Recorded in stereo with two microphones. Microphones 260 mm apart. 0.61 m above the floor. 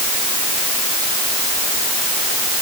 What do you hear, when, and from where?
Only background noise.